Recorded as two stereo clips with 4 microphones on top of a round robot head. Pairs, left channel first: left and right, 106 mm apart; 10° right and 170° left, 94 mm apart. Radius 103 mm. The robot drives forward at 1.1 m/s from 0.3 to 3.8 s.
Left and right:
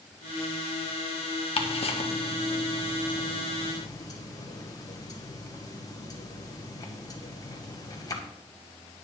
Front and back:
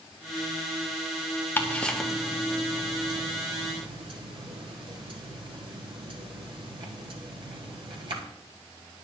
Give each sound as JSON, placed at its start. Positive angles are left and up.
{"t": 1.6, "sound": "ticking", "azimuth_deg": 60, "distance_m": 1.6}